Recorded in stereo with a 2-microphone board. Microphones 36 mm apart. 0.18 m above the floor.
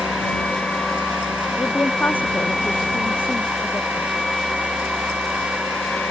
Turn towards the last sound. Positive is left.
turn(degrees=75)  # may be behind; listen again after turning